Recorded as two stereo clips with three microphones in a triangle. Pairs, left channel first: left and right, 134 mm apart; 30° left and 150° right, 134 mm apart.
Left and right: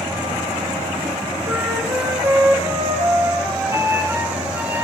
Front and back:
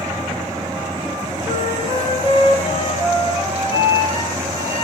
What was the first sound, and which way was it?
A flute, 20° right.